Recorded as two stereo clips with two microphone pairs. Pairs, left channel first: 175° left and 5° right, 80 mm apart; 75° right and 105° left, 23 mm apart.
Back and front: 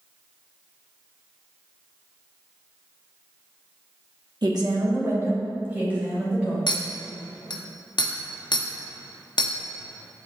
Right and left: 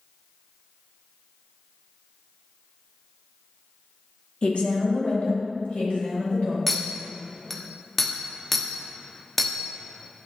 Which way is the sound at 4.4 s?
35° right.